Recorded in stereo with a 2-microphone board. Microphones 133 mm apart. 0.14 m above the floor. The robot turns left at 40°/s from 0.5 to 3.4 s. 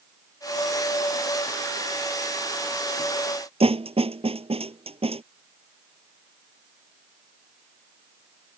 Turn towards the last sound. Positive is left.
turn(degrees=-50)  # may be behind; listen again after turning